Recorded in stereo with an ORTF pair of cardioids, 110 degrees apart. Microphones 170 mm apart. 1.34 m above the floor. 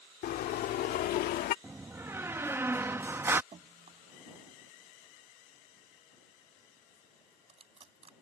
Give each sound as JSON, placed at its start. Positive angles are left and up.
{"t": 0.2, "sound": "a car horn", "azimuth_deg": 65}
{"t": 1.6, "sound": "a door slam", "azimuth_deg": -15}
{"t": 3.5, "sound": "dripping", "azimuth_deg": -35}